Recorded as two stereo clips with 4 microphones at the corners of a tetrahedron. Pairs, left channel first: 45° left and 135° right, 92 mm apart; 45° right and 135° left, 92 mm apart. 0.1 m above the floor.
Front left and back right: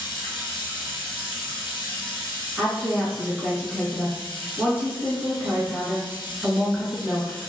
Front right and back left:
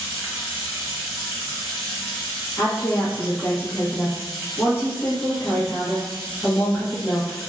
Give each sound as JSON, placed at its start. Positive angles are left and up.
{"t": 0.0, "sound": "running water", "azimuth_deg": 75, "distance_m": 0.9}
{"t": 2.6, "sound": "a woman speaking", "azimuth_deg": -75, "distance_m": 1.2}